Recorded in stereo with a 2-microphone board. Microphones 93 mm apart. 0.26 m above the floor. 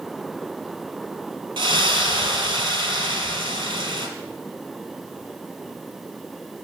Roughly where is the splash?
Right.